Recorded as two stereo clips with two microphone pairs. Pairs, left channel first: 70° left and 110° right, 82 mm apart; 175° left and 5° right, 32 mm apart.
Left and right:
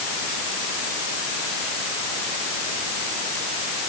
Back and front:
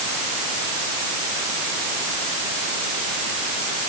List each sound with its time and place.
Only background noise.